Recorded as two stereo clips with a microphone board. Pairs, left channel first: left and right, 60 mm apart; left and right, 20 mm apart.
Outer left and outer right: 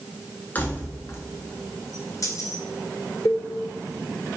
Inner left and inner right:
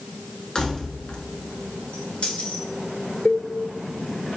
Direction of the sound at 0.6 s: 30° left (ahead or behind).